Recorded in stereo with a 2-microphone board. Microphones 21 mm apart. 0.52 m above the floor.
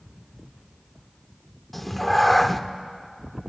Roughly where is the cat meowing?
Centre.